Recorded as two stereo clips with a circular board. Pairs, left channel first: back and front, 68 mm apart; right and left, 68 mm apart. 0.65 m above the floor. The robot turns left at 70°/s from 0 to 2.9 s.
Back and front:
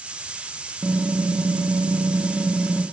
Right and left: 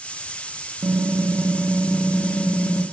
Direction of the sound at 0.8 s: 60° left.